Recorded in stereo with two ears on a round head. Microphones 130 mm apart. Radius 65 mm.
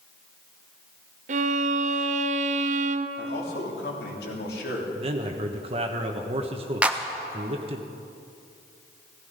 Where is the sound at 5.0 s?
40° right (ahead or behind), 1.1 m.